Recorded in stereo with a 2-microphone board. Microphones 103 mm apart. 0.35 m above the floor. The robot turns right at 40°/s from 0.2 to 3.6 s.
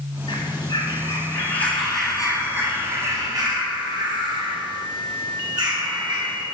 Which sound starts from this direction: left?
A bird, at 0.3 s.